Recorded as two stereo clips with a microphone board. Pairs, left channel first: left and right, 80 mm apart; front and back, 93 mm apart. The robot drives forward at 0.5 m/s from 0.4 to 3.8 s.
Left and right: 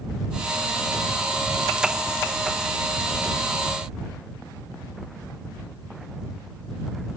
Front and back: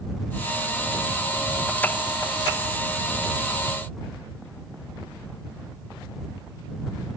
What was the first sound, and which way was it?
Only background noise.